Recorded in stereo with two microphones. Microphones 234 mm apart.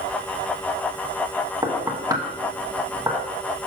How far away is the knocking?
About 1.0 m.